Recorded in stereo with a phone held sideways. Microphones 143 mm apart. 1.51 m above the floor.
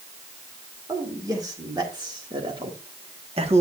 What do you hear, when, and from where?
0.9 s a man speaking: 25° right (ahead or behind), 2.5 m; by 3.6 s 45° right (ahead or behind), 1.5 m